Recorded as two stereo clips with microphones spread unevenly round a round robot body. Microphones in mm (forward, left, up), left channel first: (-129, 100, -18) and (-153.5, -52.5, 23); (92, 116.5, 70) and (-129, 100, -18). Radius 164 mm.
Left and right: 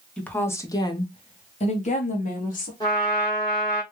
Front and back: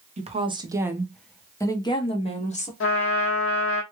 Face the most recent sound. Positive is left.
turn(degrees=0)